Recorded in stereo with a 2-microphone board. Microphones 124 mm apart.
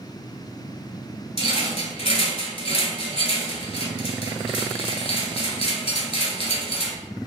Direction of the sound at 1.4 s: 55° left (ahead or behind).